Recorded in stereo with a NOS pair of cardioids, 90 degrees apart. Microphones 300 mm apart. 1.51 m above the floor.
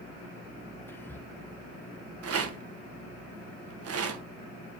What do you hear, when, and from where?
0.9 s whispering: 5° left, 1.1 m
2.2 s a rattle: 50° right, 1.5 m